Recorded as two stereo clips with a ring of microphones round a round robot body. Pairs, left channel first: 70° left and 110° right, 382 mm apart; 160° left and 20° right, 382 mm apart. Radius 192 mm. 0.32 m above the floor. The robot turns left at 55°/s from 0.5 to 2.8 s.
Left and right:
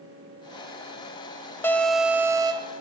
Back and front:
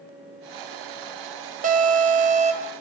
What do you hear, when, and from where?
1.6 s an alarm: 5° right, 0.8 m; by 2.7 s 65° right, 0.8 m